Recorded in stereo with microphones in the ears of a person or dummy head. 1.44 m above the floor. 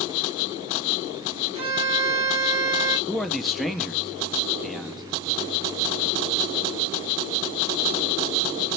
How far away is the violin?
About 1.9 m.